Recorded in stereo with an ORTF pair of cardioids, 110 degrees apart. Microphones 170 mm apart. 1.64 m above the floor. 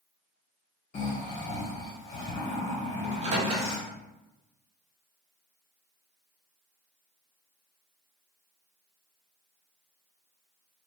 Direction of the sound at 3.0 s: 40° right.